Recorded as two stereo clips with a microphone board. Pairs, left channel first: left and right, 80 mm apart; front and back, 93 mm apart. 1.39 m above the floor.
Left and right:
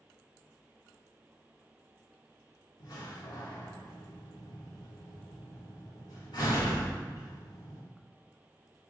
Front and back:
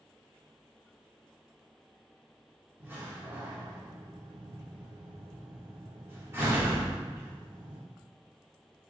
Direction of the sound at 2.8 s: 115° left.